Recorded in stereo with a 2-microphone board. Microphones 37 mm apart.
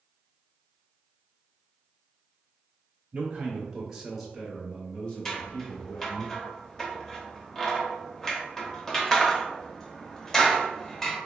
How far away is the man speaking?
About 1.0 m.